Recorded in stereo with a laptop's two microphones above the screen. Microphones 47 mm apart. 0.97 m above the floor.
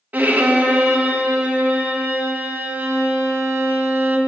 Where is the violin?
35° right (ahead or behind), 0.8 m.